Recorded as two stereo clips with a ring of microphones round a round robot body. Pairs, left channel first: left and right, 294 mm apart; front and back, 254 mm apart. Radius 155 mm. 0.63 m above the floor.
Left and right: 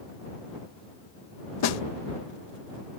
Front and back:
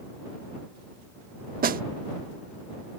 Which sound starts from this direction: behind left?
A snare drum, at 1.6 s.